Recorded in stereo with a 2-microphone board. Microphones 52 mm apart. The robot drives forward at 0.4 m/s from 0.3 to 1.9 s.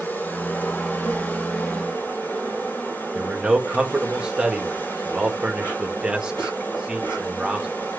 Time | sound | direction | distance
0.0 | an insect | 40° left (ahead or behind) | 5.5 m
3.1 | a man speaking | 20° right (ahead or behind) | 1.9 m